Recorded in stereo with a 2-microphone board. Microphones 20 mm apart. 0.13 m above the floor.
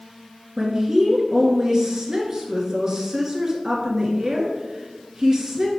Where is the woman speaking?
30° right (ahead or behind), 1.7 m.